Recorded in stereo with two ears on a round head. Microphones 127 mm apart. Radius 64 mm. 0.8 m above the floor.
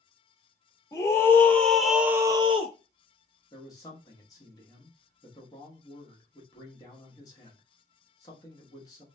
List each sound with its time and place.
0.9 s a scream: 20° left (ahead or behind), 1.2 m; by 2.8 s 45° right (ahead or behind), 0.6 m
3.5 s a man speaking: 25° left (ahead or behind), 1.1 m